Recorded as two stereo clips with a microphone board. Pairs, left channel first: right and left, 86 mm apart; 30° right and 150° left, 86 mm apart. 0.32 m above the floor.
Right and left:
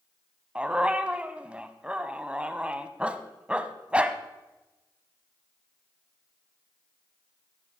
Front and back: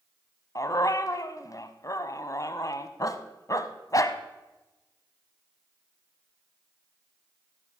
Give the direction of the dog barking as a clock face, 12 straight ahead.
12 o'clock.